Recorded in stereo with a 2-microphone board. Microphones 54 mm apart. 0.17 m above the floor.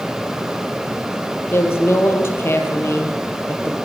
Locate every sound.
1.5 s a woman speaking: 45° left (ahead or behind), 5 m; by 3.8 s 50° left (ahead or behind), 4 m